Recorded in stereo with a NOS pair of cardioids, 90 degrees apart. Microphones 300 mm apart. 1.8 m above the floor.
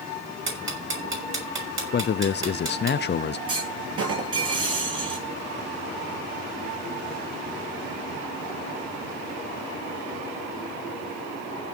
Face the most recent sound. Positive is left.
turn(degrees=-50)